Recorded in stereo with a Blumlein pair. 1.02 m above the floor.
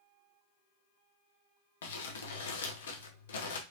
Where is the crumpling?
60° left, 0.8 m.